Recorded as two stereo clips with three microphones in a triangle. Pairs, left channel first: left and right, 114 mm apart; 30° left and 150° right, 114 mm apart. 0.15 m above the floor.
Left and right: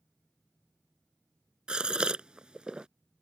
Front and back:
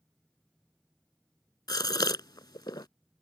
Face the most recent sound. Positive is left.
turn(degrees=-10)